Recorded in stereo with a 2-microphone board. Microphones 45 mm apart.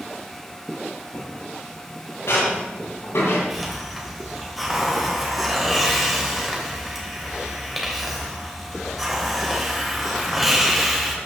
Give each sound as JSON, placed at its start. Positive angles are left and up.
{"t": 1.1, "sound": "footsteps", "side_deg": 80, "distance_m": 6.5}
{"t": 3.5, "sound": "a hiss", "side_deg": 0, "distance_m": 2.5}